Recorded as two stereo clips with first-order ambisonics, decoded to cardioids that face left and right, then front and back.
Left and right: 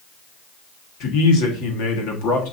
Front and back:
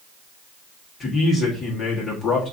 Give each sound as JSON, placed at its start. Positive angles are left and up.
{"t": 1.0, "sound": "a man speaking", "azimuth_deg": 70, "distance_m": 1.5}